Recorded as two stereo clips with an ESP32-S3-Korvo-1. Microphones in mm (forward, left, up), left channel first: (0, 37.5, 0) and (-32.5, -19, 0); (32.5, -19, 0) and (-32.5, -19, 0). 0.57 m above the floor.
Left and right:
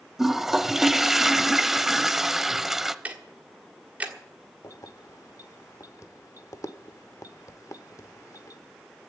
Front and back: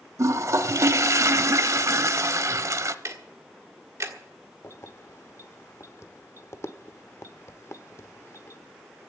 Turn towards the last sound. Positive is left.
turn(degrees=35)